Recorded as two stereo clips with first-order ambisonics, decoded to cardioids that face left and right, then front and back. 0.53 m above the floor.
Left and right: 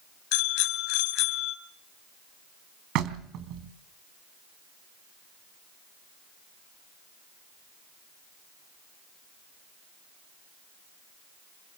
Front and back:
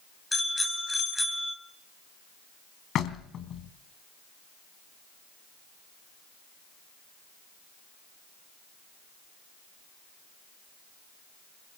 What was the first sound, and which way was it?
A bicycle bell, 85° left.